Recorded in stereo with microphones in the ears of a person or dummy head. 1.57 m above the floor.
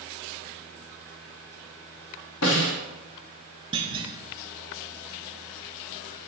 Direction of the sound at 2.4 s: 80° left.